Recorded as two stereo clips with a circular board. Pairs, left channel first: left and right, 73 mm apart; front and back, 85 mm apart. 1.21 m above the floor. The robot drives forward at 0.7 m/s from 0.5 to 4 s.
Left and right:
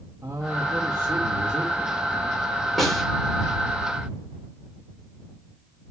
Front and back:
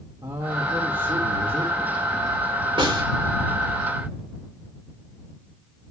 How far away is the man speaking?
About 2 m.